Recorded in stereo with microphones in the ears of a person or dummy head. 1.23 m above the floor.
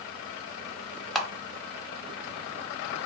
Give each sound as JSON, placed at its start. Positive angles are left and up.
{"t": 1.1, "sound": "a camera shutter", "side_deg": 5, "distance_m": 0.6}